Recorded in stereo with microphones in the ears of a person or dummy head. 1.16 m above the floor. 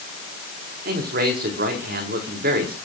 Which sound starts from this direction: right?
A man speaking, at 0.8 s.